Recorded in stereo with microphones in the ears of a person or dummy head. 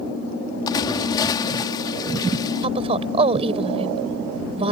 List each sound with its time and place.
0.7 s a splash: 25° left (ahead or behind)
2.6 s a woman speaking: 35° right (ahead or behind)